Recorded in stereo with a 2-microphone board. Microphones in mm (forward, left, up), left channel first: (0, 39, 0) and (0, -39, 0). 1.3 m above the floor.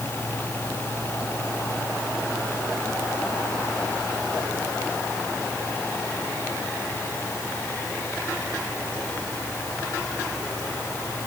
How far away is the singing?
I don't hear singing.